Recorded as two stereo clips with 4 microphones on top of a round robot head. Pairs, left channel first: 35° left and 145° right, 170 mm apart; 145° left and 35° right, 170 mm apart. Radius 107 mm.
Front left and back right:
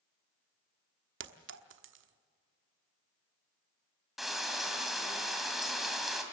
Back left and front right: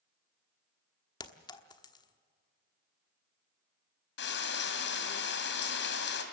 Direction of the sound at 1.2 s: 145° right.